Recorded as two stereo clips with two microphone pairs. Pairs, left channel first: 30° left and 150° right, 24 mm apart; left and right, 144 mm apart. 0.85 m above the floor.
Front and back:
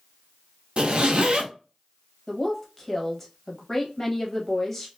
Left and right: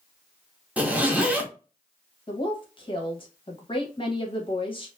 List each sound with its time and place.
0.8 s a zipper: 170° right, 0.6 m
2.3 s a woman speaking: 95° left, 0.7 m